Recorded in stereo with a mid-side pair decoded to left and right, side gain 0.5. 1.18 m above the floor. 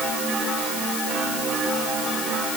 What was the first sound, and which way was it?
Only background noise.